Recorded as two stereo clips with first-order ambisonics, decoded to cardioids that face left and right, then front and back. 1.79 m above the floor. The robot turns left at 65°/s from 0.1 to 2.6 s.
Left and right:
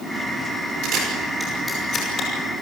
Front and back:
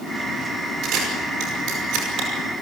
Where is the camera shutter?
135° right, 7.5 m; by 2.3 s 130° left, 7.5 m.